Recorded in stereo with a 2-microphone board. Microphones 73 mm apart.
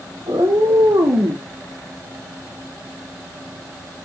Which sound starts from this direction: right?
A cat meowing, at 0.2 s.